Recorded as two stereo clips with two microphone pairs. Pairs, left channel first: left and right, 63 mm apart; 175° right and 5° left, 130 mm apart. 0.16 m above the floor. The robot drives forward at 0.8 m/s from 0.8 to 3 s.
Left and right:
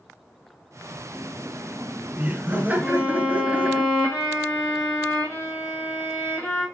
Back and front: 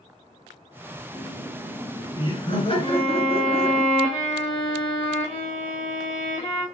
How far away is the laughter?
About 1.8 m.